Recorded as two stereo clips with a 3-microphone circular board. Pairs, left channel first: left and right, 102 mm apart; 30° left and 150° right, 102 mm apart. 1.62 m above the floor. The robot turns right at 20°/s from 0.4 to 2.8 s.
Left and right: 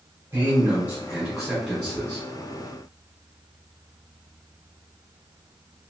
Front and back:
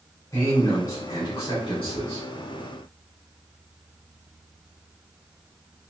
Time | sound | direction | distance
0.3 | a man speaking | 40° right | 1.9 m